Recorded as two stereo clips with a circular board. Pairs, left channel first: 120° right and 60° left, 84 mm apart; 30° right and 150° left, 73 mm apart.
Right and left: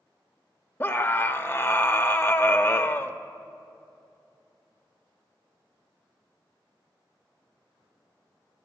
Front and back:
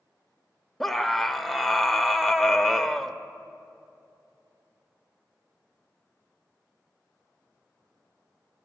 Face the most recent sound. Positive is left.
turn(degrees=-110)